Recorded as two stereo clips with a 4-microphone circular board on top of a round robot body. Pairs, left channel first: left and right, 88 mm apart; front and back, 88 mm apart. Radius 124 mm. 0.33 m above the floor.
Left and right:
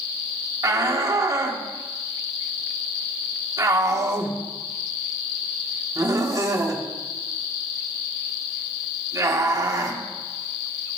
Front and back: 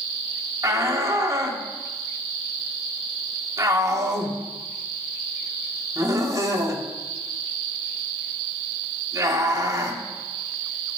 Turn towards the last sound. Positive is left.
turn(degrees=-135)